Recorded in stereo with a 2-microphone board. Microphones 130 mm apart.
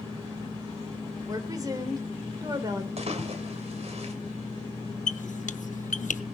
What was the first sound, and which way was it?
A woman speaking, 30° right (ahead or behind).